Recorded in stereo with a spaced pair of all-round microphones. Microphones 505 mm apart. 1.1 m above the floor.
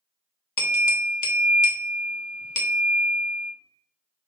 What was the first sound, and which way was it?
A bell, 40° left (ahead or behind).